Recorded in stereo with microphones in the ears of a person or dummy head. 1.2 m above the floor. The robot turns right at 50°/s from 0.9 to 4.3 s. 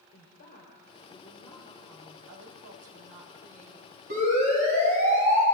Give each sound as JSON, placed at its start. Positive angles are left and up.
{"t": 0.1, "sound": "a woman speaking", "azimuth_deg": 135, "distance_m": 4.0}
{"t": 2.3, "sound": "a woman speaking", "azimuth_deg": -110, "distance_m": 4.5}
{"t": 4.1, "sound": "a siren", "side_deg": -45, "distance_m": 8.5}